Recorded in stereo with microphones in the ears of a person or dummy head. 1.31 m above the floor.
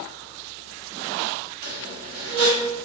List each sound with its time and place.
1.6 s a squeak: 50° right (ahead or behind), 1.0 m